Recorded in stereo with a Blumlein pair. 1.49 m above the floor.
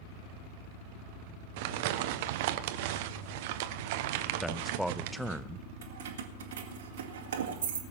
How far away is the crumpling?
About 1.0 m.